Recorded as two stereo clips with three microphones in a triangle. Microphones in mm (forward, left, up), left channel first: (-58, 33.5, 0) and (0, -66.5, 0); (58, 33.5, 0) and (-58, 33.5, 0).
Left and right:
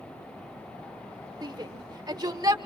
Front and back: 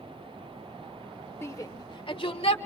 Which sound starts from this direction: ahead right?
A shout, at 1.4 s.